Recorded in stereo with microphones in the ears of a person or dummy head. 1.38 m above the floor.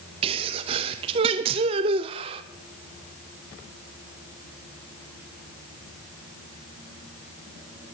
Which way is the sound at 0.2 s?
30° right (ahead or behind).